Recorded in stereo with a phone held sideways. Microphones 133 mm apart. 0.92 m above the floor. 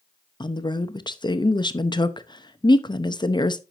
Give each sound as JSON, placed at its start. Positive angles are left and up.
{"t": 0.4, "sound": "a woman speaking", "side_deg": 35, "distance_m": 0.7}